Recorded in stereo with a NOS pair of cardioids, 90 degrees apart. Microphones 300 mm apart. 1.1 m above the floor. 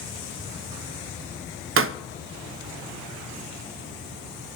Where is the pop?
45° right, 0.6 m.